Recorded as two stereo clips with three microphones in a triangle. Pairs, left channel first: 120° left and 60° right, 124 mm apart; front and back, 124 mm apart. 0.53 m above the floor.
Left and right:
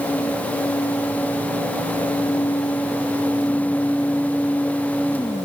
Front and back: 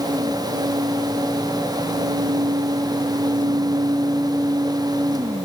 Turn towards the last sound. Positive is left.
No sound to turn to.